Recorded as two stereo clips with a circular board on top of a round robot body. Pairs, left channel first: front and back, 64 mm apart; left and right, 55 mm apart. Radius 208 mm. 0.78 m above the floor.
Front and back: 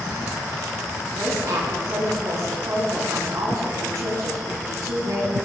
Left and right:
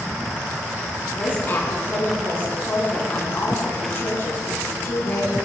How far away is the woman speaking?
About 8.5 m.